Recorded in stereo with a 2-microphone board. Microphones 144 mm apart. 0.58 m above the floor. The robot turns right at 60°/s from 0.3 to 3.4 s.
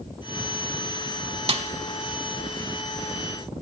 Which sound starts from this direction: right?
A snare drum, at 1.5 s.